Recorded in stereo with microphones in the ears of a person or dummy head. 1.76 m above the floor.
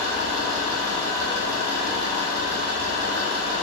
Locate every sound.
0.0 s an engine running: 65° right (ahead or behind), 1.2 m